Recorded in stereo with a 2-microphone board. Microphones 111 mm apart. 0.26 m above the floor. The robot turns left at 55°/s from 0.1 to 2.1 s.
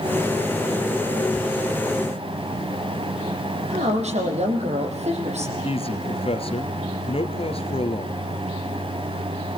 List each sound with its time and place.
3.7 s a woman speaking: 70° right (ahead or behind), 8.5 m
5.6 s a man speaking: 55° left (ahead or behind), 4 m